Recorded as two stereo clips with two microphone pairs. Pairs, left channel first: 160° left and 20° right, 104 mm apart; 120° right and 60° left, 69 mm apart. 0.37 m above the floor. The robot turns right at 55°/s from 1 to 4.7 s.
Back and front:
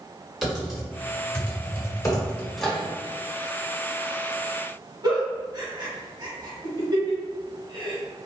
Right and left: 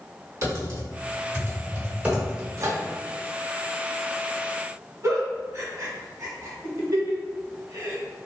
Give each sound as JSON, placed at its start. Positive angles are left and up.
{"t": 0.4, "sound": "typing on a keyboard", "azimuth_deg": 65, "distance_m": 1.4}
{"t": 2.6, "sound": "a microwave", "azimuth_deg": 65, "distance_m": 0.9}
{"t": 5.0, "sound": "a giggle", "azimuth_deg": 25, "distance_m": 1.4}